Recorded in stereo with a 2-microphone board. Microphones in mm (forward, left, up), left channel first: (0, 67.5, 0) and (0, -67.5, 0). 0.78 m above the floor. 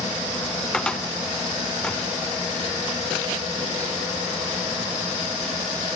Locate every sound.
0.7 s a cupboard door: 5° left (ahead or behind), 1.7 m